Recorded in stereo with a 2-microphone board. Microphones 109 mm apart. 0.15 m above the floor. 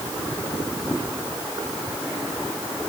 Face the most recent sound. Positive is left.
No sound to turn to.